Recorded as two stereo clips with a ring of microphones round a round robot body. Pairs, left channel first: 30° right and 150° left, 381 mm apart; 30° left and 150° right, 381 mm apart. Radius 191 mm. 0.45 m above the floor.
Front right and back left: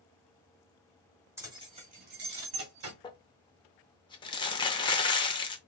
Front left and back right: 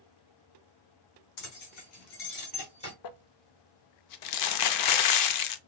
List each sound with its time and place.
1.4 s keys jangling: 65° left, 1.7 m; by 2.9 s 105° left, 1.8 m
3.0 s crumpling: 45° left, 0.5 m